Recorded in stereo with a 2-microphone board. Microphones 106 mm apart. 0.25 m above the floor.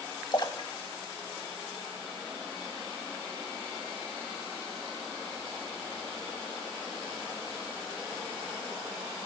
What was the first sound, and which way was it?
A splash, 45° left (ahead or behind).